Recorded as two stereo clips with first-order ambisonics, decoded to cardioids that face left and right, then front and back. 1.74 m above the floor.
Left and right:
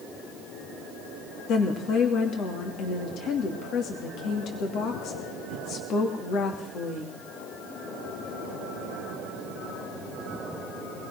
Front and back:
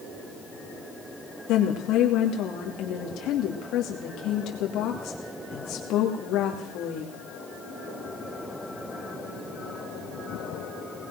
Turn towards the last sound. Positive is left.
turn(degrees=40)